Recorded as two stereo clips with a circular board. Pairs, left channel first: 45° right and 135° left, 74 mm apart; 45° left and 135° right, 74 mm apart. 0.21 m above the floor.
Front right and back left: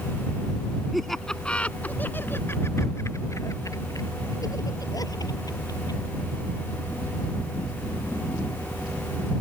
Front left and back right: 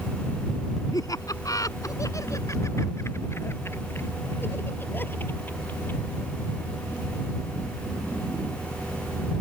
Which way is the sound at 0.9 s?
45° left.